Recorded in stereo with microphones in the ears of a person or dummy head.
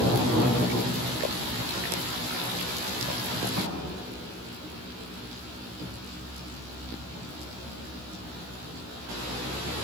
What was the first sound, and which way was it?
A thud, 70° right (ahead or behind).